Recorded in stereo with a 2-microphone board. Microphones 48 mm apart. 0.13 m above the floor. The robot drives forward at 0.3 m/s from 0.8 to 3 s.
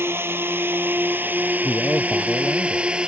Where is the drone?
55° right (ahead or behind); by 3.1 s 20° right (ahead or behind).